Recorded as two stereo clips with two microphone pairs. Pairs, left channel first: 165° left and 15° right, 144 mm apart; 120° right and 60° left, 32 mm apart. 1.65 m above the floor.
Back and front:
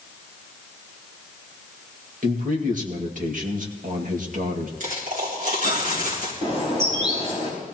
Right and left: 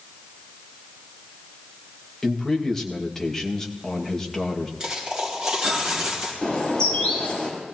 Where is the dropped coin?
Straight ahead, 4 m.